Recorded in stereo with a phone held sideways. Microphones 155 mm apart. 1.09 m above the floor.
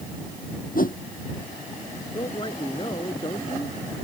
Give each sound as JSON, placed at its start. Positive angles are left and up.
{"t": 0.8, "sound": "a whoosh", "side_deg": 65}
{"t": 2.1, "sound": "a man speaking", "side_deg": 35}